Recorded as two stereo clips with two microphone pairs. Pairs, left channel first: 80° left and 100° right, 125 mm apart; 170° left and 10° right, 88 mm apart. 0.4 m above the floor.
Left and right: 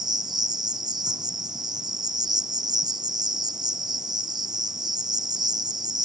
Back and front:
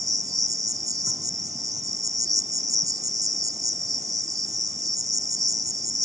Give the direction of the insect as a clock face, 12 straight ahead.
2 o'clock.